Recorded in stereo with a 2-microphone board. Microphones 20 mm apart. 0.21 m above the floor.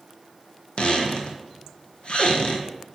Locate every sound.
0.8 s a squeak: 60° left (ahead or behind), 1.2 m